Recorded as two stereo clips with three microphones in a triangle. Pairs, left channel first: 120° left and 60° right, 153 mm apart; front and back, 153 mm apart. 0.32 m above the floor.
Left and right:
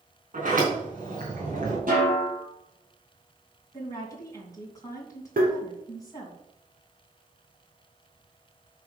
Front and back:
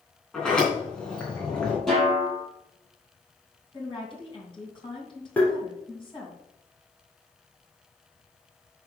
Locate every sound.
0.3 s a sliding door: 85° right, 4 m
1.9 s a snare drum: 85° right, 4.5 m
3.7 s a woman speaking: 55° left, 2.5 m
5.4 s tapping: 80° right, 3 m